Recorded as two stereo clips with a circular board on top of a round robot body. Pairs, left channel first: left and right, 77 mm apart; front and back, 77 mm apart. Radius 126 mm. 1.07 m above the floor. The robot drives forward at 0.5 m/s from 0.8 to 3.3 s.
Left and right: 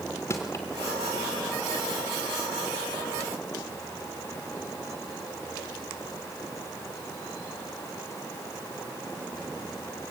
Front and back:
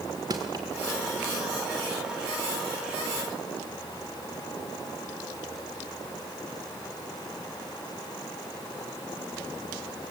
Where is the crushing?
145° left, 0.8 m.